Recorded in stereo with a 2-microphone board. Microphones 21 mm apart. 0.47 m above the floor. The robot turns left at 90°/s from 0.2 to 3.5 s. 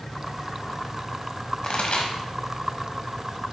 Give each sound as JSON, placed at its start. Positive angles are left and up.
{"t": 1.6, "sound": "a pop", "side_deg": 45, "distance_m": 1.3}